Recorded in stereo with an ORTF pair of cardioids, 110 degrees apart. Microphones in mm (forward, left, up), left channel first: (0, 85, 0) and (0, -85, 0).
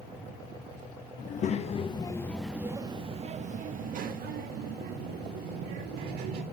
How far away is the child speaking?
About 1.4 m.